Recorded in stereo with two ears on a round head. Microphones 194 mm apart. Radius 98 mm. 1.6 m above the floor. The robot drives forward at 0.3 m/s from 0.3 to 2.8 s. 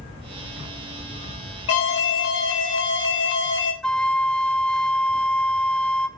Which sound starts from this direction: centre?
A flute, at 3.8 s.